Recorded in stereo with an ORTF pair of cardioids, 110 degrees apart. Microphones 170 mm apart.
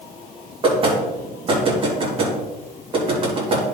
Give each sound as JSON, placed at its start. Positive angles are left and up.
{"t": 0.6, "sound": "knocking", "azimuth_deg": -30, "distance_m": 3.0}